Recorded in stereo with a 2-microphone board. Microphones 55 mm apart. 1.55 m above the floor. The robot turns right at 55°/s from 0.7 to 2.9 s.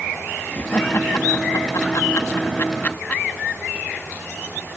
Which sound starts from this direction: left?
Laughter, at 0.5 s.